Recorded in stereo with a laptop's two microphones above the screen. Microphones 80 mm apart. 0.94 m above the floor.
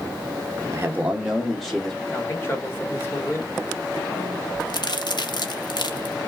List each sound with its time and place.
0.7 s a man speaking: 40° right (ahead or behind), 0.8 m; by 2.0 s 5° left (ahead or behind), 1.8 m
2.1 s a man speaking: 30° left (ahead or behind), 2 m
4.6 s a crack: 65° left (ahead or behind), 0.8 m